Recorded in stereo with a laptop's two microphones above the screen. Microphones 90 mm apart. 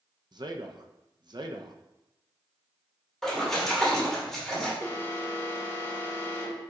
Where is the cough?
No cough in this recording.